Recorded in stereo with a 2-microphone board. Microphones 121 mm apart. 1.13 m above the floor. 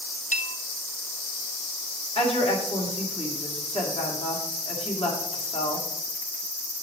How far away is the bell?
About 0.6 m.